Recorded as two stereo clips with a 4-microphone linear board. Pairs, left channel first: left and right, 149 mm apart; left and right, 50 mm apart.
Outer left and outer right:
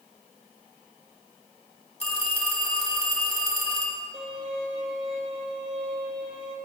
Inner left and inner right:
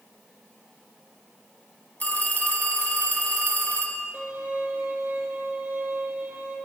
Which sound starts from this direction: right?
A violin, at 4.1 s.